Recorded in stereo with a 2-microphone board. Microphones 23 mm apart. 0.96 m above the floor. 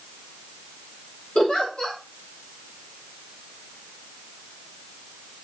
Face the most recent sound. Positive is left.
turn(degrees=50)  # may be behind; listen again after turning